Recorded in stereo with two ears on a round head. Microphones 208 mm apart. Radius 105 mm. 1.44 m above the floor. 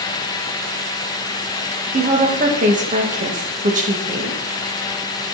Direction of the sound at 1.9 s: 35° right (ahead or behind).